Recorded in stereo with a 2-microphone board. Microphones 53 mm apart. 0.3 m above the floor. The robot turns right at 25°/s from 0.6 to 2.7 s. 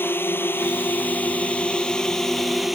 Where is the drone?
130° left; by 2.8 s 175° right.